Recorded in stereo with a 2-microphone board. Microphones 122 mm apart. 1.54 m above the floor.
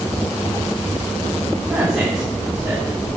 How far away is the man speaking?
About 5 m.